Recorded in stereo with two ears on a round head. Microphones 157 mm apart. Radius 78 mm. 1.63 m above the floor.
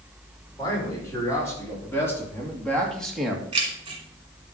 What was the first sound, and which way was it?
A man speaking, 20° left (ahead or behind).